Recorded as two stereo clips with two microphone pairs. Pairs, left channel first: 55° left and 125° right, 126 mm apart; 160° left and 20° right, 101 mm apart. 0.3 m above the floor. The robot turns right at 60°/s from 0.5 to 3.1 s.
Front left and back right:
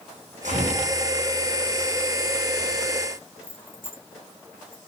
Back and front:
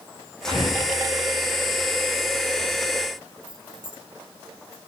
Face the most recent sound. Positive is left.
turn(degrees=-60)